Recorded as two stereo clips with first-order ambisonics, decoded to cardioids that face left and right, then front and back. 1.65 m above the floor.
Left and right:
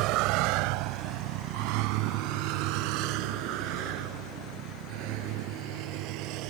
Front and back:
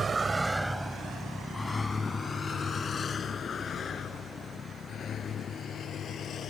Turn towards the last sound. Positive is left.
turn(degrees=-60)